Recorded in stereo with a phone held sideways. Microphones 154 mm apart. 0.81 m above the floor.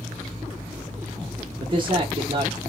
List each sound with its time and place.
1.6 s a man speaking: 35° right (ahead or behind), 0.7 m